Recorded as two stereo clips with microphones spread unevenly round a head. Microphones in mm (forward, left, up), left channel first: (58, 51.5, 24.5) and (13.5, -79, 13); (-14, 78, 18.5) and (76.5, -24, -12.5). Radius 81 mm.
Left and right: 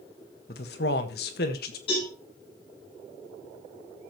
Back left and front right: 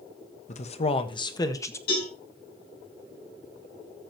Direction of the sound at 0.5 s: 105° left.